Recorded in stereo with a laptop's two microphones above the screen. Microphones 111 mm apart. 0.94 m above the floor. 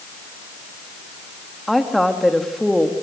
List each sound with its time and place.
1.7 s a woman speaking: centre (ahead or behind), 1.9 m